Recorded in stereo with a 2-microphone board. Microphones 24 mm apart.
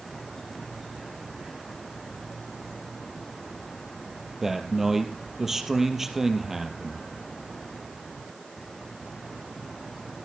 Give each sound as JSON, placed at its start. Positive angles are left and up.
{"t": 4.4, "sound": "a man speaking", "side_deg": -15, "distance_m": 3.0}